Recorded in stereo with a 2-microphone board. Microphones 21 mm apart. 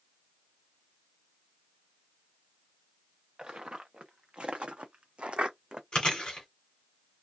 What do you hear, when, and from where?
3.4 s footsteps: 40° right (ahead or behind), 1.3 m
5.9 s chewing: 40° left (ahead or behind), 1.3 m